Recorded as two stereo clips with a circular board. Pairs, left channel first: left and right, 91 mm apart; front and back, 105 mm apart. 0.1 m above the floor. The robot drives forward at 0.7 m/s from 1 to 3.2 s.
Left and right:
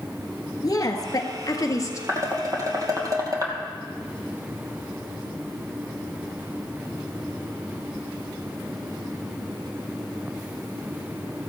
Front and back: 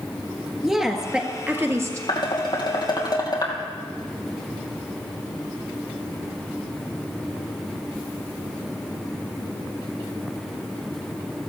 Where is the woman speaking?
95° left, 1.4 m; by 2.0 s 130° left, 1.6 m.